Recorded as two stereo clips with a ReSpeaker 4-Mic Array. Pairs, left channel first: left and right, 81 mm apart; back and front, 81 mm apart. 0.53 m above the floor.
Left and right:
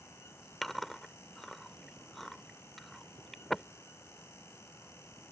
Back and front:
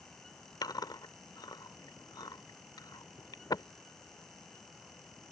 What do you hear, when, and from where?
0.6 s chewing: 175° left